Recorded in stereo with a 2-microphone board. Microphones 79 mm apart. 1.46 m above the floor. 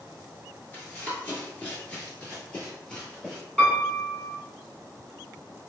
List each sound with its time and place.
0.7 s running footsteps: 25° left (ahead or behind), 1.5 m; by 3.4 s 10° left (ahead or behind), 2 m
3.6 s a piano: 10° left (ahead or behind), 1.2 m